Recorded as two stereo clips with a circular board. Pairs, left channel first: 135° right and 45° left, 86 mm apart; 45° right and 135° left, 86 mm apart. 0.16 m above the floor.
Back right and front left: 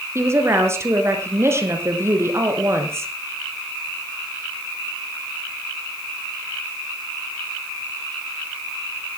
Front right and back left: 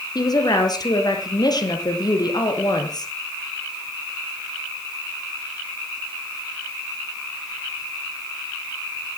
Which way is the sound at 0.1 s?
10° right.